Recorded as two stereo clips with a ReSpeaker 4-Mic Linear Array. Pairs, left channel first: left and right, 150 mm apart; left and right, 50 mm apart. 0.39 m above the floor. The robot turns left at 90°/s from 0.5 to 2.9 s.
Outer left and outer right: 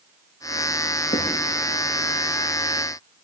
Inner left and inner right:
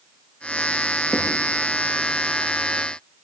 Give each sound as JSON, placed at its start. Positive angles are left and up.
{"t": 1.1, "sound": "writing", "side_deg": 85, "distance_m": 3.0}